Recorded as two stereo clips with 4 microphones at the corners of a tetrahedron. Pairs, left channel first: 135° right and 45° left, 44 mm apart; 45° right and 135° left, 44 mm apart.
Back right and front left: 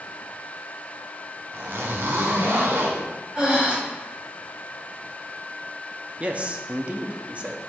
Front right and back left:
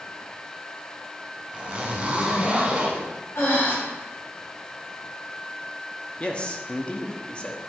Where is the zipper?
70° left, 1.5 m.